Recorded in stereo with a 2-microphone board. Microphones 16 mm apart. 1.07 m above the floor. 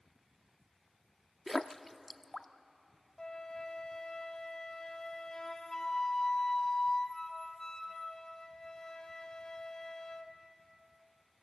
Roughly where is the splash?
Centre.